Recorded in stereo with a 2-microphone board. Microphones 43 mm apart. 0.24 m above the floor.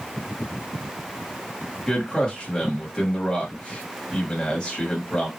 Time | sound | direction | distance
1.9 | a man speaking | 20° left (ahead or behind) | 1.0 m